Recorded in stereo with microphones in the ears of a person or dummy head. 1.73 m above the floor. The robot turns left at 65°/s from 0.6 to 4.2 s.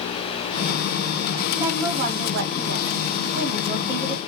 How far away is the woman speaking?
About 1.1 m.